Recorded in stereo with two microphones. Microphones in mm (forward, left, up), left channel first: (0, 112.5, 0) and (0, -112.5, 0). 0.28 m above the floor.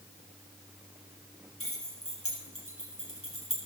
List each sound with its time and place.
1.6 s keys jangling: 80° left, 5 m; by 3.6 s 75° left (ahead or behind), 4 m